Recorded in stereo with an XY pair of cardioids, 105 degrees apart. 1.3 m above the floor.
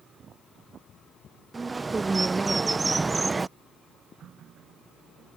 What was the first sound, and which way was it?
A bird, 25° right.